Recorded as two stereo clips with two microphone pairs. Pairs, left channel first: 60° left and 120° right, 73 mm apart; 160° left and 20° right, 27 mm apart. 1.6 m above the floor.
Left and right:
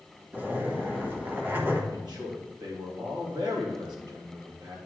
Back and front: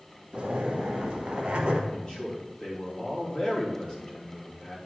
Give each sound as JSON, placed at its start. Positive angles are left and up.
{"t": 0.3, "sound": "a zipper", "azimuth_deg": -65, "distance_m": 1.4}
{"t": 1.9, "sound": "a man speaking", "azimuth_deg": -135, "distance_m": 3.5}